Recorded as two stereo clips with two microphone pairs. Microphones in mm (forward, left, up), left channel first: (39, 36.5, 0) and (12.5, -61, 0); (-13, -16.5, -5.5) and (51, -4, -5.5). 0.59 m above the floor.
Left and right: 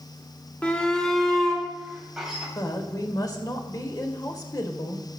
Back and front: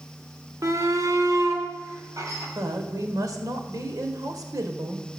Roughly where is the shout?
Ahead.